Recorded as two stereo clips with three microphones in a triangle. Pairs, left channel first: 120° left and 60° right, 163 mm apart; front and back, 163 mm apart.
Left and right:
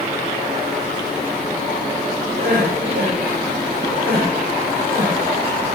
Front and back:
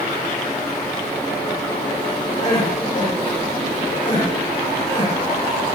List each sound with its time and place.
2.4 s crying: 55° right, 9 m